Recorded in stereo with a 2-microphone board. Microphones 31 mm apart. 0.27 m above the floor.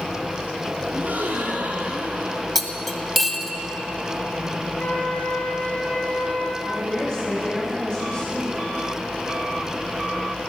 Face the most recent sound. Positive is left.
turn(degrees=35)  # may be behind; listen again after turning